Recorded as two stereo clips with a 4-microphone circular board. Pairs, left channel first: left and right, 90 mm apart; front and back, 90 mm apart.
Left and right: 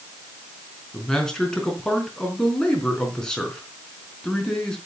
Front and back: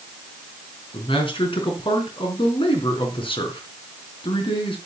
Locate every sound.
0.9 s a man speaking: 5° left, 4 m